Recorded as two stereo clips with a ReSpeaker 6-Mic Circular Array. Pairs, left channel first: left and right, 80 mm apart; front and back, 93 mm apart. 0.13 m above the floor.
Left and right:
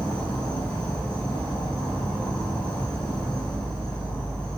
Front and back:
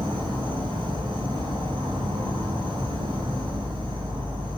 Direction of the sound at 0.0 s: 165° left.